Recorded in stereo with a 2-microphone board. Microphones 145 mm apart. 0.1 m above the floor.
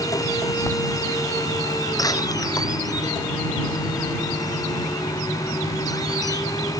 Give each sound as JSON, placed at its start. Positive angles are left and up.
{"t": 0.7, "sound": "writing", "side_deg": 15}
{"t": 2.0, "sound": "a door slam", "side_deg": 25}